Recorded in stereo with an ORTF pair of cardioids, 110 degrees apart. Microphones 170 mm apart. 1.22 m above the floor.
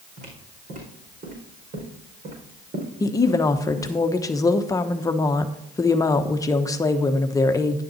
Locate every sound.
0.2 s footsteps: 60° right, 4.5 m
3.0 s a woman speaking: 20° left, 1.0 m